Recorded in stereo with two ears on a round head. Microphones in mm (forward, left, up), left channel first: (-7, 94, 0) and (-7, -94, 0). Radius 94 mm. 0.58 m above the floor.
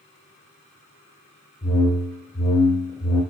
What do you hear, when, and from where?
1.6 s a whoosh: 20° left (ahead or behind), 0.8 m